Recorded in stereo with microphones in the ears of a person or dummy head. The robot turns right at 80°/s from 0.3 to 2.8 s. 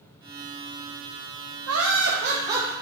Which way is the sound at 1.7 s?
90° right.